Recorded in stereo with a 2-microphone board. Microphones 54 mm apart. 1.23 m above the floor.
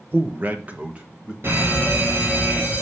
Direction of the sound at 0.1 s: 40° right (ahead or behind).